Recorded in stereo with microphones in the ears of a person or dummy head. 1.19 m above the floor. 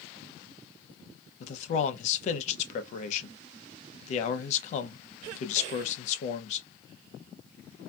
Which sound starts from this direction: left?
A man speaking, at 1.4 s.